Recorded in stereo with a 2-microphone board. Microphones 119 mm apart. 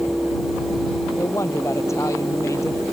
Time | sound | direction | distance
1.2 | a woman speaking | 25° left (ahead or behind) | ?